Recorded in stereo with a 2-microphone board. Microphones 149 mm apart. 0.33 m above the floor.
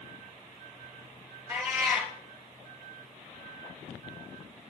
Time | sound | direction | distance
1.5 | a cat meowing | 20° right (ahead or behind) | 4 m